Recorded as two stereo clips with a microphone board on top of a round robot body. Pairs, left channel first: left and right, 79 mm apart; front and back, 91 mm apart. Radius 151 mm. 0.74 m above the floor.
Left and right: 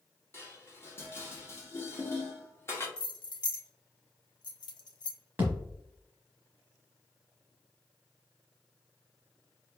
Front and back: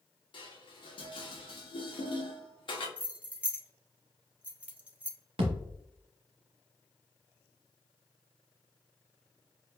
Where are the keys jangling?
105° left, 0.7 m.